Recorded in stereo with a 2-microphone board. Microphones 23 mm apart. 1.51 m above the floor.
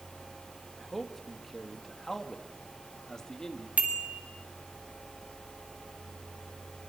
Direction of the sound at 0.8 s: 5° right (ahead or behind).